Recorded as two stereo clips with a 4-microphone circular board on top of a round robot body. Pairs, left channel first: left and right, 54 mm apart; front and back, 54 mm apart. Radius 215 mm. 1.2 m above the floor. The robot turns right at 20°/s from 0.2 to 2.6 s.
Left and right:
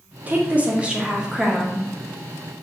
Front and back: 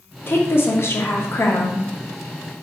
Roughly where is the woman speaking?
Ahead right.